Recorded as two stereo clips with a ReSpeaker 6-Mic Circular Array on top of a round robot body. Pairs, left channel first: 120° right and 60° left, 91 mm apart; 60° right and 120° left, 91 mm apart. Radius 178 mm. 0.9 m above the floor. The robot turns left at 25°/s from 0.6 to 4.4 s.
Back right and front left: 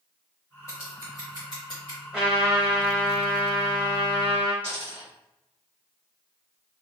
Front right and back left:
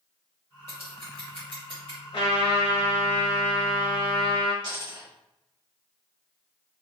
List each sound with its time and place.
0.7 s scissors: 65° right, 0.7 m; by 2.0 s 95° right, 0.7 m
2.1 s a trumpet: 30° right, 1.2 m; by 4.5 s 85° right, 1.2 m
4.6 s a dropped coin: 165° left, 1.5 m